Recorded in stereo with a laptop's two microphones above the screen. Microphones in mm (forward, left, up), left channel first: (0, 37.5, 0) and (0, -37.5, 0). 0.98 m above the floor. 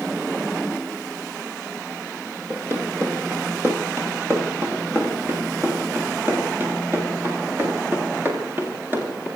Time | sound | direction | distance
2.5 | running footsteps | 35° right (ahead or behind) | 9.5 m